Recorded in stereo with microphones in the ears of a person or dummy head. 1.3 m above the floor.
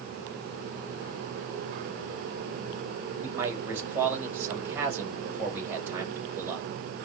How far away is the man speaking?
About 6.5 m.